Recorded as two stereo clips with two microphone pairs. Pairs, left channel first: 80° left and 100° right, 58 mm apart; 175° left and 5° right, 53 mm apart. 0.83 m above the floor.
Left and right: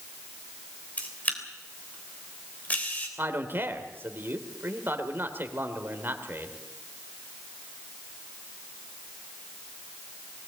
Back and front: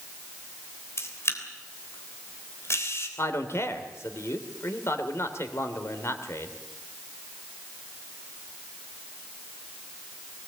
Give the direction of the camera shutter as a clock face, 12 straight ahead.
7 o'clock.